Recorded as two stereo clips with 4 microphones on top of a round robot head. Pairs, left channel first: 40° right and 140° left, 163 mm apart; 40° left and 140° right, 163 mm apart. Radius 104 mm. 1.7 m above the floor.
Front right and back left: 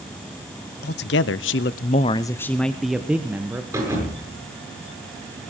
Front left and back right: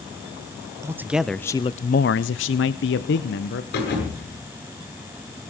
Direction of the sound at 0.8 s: 65° right.